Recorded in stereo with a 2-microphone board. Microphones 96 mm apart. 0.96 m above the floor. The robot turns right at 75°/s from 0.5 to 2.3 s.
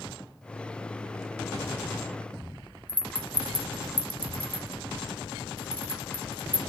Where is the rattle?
15° left (ahead or behind), 0.7 m.